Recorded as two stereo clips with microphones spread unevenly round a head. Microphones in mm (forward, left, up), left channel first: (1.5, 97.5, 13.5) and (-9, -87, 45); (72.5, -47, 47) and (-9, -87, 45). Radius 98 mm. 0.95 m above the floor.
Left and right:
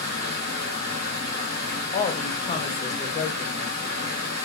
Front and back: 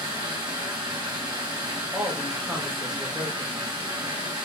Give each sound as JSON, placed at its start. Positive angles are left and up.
{"t": 0.0, "sound": "running water", "azimuth_deg": -135, "distance_m": 1.4}
{"t": 1.9, "sound": "a woman speaking", "azimuth_deg": 125, "distance_m": 0.9}